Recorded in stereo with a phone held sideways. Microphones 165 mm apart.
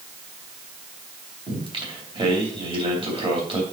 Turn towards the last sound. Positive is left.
turn(degrees=-35)  # may be behind; listen again after turning